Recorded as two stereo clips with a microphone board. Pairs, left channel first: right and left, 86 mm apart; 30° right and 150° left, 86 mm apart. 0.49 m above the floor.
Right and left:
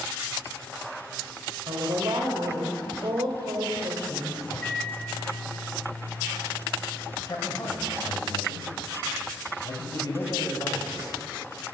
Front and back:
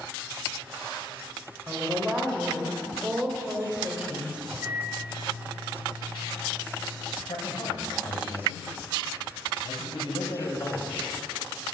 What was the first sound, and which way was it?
A woman speaking, 75° left.